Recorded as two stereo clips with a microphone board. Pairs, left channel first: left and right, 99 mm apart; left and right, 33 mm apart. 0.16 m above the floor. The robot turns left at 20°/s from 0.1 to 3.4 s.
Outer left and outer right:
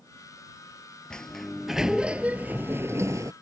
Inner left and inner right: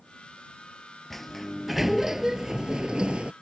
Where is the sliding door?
10° left; by 3.3 s 35° right.